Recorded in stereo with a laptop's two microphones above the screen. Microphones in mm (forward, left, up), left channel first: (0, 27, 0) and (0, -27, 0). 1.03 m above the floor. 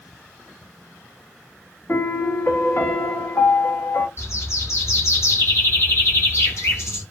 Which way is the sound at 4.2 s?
55° left (ahead or behind).